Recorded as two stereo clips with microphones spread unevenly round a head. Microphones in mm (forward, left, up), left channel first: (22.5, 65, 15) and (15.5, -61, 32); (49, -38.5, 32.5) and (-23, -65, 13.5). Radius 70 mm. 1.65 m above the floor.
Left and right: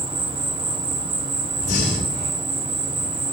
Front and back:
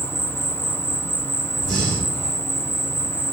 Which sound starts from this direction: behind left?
Breathing, at 1.6 s.